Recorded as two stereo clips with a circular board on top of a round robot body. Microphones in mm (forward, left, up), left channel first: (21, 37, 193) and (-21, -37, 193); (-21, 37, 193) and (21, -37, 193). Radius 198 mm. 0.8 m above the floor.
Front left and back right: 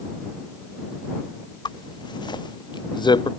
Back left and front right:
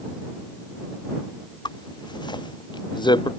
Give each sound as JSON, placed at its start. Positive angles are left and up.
{"t": 1.6, "sound": "a zipper", "azimuth_deg": 90}